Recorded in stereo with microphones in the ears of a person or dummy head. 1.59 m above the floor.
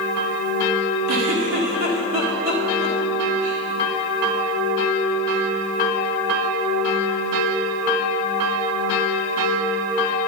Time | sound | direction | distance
1.1 | a giggle | 50° right (ahead or behind) | 1.7 m